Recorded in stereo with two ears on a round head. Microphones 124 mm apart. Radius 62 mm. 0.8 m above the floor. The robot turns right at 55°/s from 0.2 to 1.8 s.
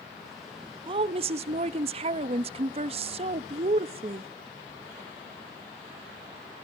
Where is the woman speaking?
125° right, 0.8 m; by 4.3 s 75° right, 0.8 m.